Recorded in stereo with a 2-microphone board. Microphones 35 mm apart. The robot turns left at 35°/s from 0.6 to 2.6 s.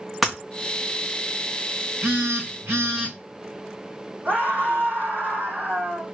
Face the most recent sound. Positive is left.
turn(degrees=-65)  # may be behind; listen again after turning